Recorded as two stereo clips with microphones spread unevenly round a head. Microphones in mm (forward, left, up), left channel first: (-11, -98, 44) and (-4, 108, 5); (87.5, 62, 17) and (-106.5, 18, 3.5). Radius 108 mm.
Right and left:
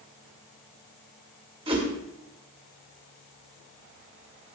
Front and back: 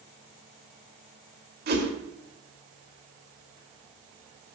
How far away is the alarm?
I don't hear an alarm.